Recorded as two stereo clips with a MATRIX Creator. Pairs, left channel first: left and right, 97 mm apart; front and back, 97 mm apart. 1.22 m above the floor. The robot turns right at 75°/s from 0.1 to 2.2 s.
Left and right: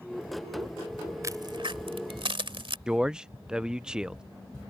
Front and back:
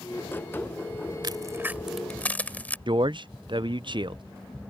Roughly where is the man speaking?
Behind.